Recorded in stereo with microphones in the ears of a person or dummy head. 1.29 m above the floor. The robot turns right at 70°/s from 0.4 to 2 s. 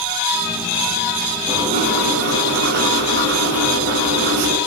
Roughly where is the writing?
Behind right.